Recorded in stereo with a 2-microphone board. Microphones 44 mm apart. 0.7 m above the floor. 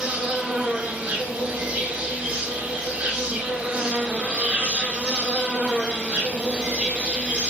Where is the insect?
35° right (ahead or behind), 1.3 m.